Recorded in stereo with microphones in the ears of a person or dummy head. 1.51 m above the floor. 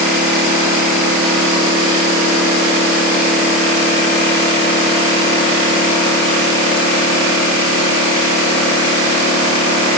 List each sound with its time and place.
Only background noise.